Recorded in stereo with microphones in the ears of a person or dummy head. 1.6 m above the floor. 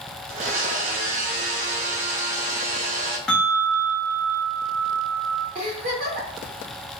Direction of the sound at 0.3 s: 55° right (ahead or behind).